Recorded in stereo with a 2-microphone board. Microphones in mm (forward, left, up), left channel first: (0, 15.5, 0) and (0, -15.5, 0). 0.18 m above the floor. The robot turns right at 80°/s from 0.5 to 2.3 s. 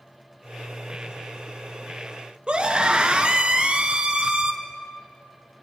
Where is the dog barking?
No dog barking in this recording.